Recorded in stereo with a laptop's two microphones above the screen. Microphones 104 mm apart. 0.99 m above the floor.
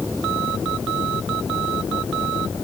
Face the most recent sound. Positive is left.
No sound to turn to.